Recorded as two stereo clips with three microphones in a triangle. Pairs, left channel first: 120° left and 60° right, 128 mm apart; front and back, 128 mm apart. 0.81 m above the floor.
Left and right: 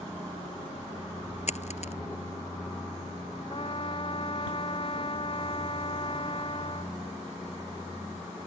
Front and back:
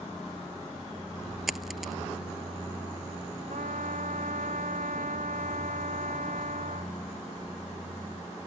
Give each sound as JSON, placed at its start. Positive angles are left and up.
{"t": 1.5, "sound": "a dropped coin", "azimuth_deg": 90}
{"t": 3.5, "sound": "a trumpet", "azimuth_deg": 165}